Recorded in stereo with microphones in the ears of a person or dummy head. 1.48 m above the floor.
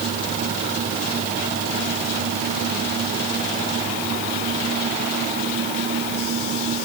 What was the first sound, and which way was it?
Only background noise.